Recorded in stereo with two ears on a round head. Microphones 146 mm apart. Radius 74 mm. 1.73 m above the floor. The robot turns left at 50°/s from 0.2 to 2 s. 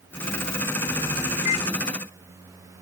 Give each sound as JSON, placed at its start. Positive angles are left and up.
{"t": 1.4, "sound": "a microwave", "side_deg": 50}